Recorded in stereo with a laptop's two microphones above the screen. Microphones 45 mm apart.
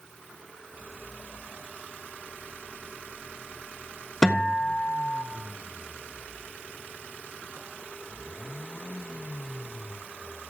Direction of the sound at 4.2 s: 15° left (ahead or behind).